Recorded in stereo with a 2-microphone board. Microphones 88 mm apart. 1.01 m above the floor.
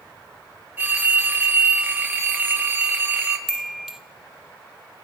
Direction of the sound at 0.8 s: 20° right (ahead or behind).